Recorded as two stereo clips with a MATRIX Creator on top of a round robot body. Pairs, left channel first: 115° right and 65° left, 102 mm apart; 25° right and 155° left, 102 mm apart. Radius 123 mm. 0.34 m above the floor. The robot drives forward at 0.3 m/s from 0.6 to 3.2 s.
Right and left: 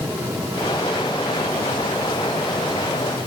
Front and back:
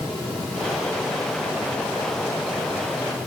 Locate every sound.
Only background noise.